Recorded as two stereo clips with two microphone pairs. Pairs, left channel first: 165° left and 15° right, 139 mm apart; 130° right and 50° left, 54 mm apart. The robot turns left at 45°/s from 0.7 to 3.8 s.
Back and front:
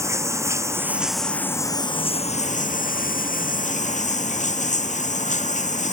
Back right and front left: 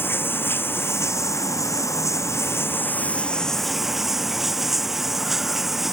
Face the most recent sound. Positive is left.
turn(degrees=135)